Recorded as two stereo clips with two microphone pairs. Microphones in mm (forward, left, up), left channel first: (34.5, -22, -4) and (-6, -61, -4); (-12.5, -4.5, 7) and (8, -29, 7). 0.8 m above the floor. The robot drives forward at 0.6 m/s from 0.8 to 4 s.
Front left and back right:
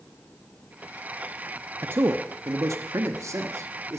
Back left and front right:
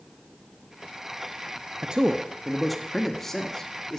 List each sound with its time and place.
1.8 s a man speaking: 100° right, 0.6 m; by 4.0 s 160° right, 1.5 m